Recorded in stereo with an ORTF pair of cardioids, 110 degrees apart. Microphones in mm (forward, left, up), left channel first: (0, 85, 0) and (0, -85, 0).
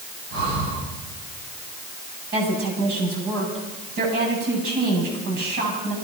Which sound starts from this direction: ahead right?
Breathing, at 0.3 s.